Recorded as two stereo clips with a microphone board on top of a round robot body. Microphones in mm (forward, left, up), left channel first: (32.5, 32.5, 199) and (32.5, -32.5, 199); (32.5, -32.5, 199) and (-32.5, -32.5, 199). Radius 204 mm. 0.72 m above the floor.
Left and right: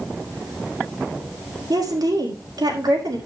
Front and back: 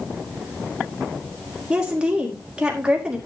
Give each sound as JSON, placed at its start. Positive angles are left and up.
{"t": 1.7, "sound": "a woman speaking", "azimuth_deg": -105, "distance_m": 4.5}